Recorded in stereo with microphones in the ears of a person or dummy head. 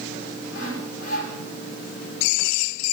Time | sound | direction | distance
0.5 | sawing | 70° left (ahead or behind) | 7 m